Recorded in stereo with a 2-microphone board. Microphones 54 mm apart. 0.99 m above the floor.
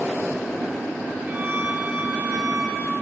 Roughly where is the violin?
Right.